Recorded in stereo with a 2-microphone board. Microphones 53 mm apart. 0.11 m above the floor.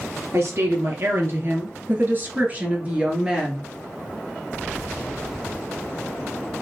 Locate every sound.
0.3 s a woman speaking: 60° right (ahead or behind), 3 m; by 3.7 s 10° right (ahead or behind), 2 m